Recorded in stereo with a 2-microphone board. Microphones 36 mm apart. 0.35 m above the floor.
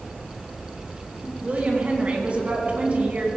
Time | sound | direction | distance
1.4 | a woman speaking | 40° right (ahead or behind) | 3.5 m